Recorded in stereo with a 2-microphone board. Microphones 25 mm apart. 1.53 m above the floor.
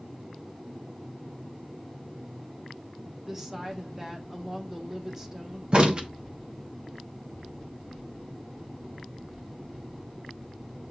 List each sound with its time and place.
3.2 s a woman speaking: 25° right (ahead or behind), 1.0 m
5.7 s a crack: 40° right (ahead or behind), 0.7 m